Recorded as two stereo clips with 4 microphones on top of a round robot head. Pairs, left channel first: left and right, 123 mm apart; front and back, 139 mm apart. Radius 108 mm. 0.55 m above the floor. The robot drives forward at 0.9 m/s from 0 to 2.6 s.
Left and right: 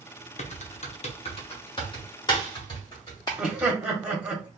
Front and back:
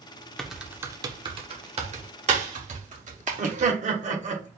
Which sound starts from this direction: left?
Typing on a keyboard, at 0.4 s.